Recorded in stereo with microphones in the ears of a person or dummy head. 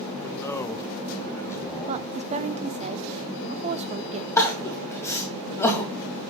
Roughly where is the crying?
Left.